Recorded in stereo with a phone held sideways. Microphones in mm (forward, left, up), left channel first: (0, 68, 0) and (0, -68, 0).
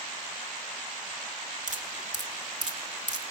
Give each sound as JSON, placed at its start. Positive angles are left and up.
{"t": 1.7, "sound": "dripping", "side_deg": -60, "distance_m": 1.7}